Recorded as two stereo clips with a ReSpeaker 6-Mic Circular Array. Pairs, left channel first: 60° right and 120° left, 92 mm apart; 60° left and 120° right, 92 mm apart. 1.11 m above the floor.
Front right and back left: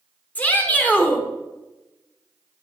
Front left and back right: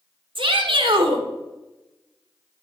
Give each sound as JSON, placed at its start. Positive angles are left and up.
{"t": 0.3, "sound": "a shout", "azimuth_deg": -130, "distance_m": 1.6}